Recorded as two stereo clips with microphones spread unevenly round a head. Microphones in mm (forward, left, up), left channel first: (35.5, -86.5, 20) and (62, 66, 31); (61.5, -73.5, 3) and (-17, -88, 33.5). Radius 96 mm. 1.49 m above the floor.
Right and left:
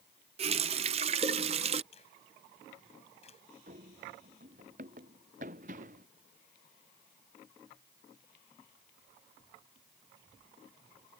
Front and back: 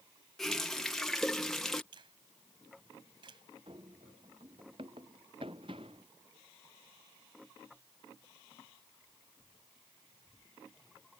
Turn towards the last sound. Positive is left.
turn(degrees=135)